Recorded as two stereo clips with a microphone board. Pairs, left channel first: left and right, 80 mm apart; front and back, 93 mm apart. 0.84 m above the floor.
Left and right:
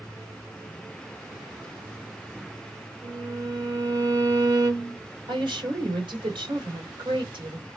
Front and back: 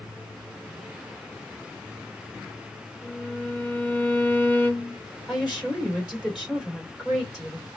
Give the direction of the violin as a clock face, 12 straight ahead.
2 o'clock.